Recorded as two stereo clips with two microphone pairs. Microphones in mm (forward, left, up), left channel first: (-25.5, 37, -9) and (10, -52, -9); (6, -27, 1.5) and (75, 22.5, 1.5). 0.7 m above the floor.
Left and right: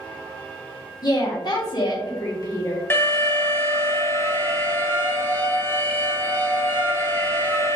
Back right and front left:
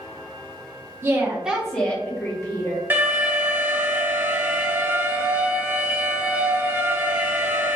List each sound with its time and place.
1.0 s a woman speaking: 80° left, 1.0 m; by 2.8 s 170° left, 1.5 m
2.9 s an alarm: 70° left, 0.6 m